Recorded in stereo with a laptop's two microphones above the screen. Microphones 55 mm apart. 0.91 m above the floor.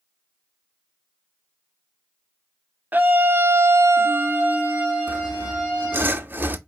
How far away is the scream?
About 0.7 m.